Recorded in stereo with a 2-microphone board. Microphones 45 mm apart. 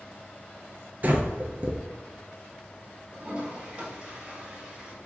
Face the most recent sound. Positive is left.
turn(degrees=-25)  # may be behind; listen again after turning